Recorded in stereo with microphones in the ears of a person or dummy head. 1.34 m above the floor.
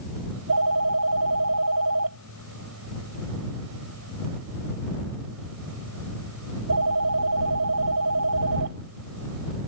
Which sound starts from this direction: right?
A phone ringing, at 0.3 s.